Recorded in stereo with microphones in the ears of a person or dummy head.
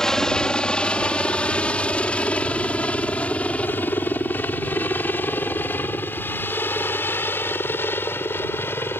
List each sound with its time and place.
0.0 s a helicopter: 5° left (ahead or behind); by 9.0 s 15° left (ahead or behind)